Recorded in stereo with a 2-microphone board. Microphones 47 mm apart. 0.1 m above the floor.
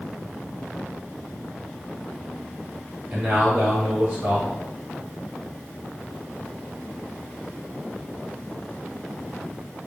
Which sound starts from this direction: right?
A man speaking, at 3.1 s.